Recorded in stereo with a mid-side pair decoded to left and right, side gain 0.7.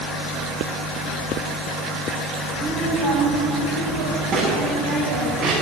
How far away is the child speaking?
About 7.5 m.